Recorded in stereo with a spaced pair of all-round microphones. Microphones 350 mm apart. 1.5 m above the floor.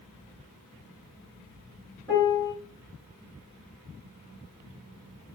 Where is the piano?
10° left (ahead or behind), 3 m.